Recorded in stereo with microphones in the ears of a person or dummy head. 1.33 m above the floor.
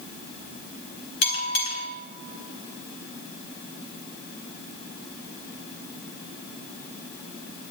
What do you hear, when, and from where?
1.2 s a bell: 60° left (ahead or behind), 1.5 m